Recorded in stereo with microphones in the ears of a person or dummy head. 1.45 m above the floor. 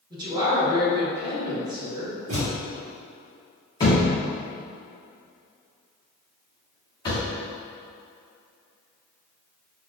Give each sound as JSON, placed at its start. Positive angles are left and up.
{"t": 0.1, "sound": "a woman speaking", "side_deg": -25, "distance_m": 1.4}
{"t": 2.3, "sound": "a thud", "side_deg": -40, "distance_m": 1.1}
{"t": 3.8, "sound": "a thud", "side_deg": 25, "distance_m": 1.3}